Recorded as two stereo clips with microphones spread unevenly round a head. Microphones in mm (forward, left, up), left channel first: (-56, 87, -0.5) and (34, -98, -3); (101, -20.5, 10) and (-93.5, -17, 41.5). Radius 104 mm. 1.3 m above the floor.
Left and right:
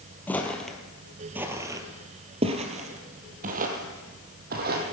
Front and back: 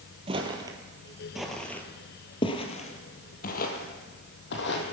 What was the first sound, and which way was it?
Footsteps, 170° right.